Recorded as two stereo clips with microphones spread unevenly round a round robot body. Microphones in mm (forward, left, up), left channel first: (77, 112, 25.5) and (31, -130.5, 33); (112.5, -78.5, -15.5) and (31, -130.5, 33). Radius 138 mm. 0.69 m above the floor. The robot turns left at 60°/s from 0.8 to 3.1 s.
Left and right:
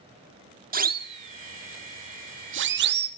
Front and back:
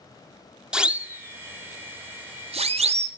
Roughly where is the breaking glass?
No breaking glass in this recording.